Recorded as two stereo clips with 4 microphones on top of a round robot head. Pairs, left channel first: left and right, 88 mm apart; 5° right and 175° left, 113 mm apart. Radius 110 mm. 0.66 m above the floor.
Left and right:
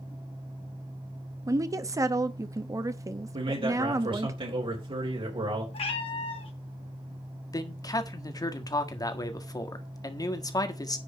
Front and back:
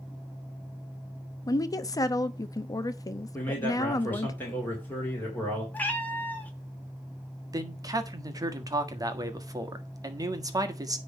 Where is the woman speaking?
50° right, 0.8 m.